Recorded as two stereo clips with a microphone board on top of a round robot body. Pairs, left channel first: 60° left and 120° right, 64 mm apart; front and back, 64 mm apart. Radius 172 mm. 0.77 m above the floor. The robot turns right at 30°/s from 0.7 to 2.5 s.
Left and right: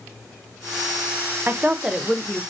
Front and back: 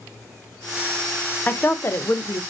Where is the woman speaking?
60° right, 0.6 m; by 2.4 s 30° right, 0.6 m.